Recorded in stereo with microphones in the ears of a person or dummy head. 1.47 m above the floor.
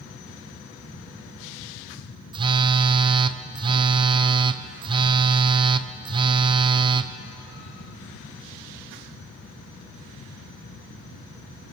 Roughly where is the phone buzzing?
Right.